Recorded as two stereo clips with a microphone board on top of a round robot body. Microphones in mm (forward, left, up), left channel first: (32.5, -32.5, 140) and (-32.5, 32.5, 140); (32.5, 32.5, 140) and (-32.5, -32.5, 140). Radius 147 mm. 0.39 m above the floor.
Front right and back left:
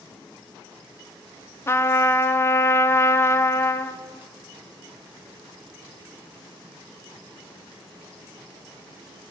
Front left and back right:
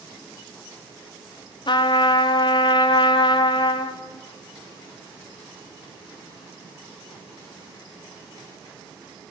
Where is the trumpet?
15° left, 0.5 m.